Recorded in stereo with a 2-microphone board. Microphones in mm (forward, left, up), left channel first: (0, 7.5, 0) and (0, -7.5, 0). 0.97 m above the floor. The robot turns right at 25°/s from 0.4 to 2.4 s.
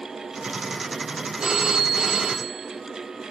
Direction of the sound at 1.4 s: 65° right (ahead or behind).